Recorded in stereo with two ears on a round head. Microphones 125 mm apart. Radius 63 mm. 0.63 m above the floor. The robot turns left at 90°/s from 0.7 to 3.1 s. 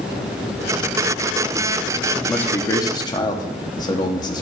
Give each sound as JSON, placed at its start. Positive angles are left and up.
{"t": 2.1, "sound": "a man speaking", "side_deg": 0, "distance_m": 1.0}